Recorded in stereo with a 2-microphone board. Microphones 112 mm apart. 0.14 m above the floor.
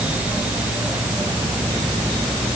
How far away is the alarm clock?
I don't hear an alarm clock.